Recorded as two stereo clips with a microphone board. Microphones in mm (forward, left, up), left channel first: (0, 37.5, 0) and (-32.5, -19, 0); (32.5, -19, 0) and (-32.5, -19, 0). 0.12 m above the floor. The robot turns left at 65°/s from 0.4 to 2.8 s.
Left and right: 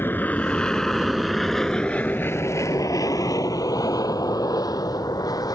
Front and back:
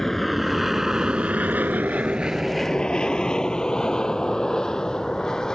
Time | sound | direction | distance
0.0 | an aircraft | 80° left | ?